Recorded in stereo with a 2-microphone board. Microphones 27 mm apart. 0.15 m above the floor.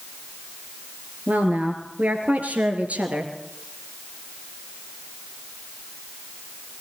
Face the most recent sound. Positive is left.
turn(degrees=-55)  # may be behind; listen again after turning